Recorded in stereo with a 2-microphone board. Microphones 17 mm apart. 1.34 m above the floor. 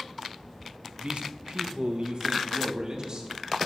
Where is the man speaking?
70° right (ahead or behind), 0.8 m; by 3.3 s 45° right (ahead or behind), 2.0 m.